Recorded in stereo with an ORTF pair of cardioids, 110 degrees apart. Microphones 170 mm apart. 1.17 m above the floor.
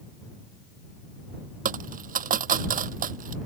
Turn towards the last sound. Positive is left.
turn(degrees=-55)